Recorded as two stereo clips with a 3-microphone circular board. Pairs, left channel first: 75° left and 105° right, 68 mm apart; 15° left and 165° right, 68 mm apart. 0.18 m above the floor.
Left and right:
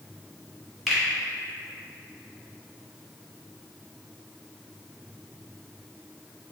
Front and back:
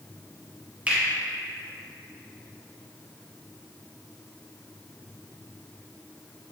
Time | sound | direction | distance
0.9 | a finger snap | 170° left | 1.1 m